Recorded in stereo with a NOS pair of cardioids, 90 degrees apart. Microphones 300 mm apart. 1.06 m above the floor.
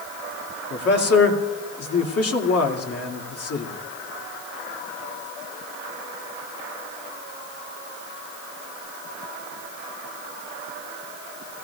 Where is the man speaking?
50° left, 2 m.